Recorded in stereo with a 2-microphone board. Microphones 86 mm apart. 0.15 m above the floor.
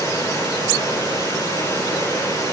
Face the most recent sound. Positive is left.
turn(degrees=40)  # may be behind; listen again after turning